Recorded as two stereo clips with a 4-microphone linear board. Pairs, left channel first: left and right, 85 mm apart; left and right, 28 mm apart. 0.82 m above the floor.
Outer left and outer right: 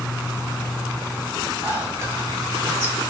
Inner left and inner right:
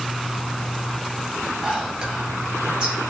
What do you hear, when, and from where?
1.6 s whispering: 35° right (ahead or behind), 4.5 m